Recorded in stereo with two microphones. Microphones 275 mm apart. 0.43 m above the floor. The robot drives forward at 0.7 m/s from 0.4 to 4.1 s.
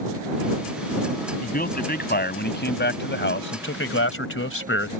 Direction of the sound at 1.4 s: 35° left (ahead or behind).